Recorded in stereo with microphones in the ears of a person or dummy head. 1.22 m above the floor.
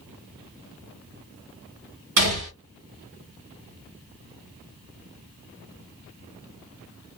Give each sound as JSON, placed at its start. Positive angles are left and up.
{"t": 2.2, "sound": "a gunshot", "side_deg": -60, "distance_m": 1.9}